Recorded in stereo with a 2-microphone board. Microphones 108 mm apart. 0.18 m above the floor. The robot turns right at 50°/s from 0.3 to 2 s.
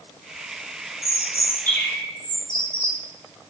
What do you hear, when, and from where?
1.0 s a bird: 110° left, 1.5 m; by 3.0 s 155° left, 1.5 m